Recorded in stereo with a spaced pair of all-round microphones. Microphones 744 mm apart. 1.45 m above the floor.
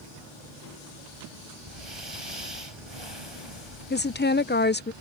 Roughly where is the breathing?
Right.